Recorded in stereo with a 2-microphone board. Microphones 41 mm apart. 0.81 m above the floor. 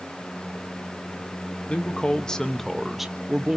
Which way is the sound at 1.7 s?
30° left (ahead or behind).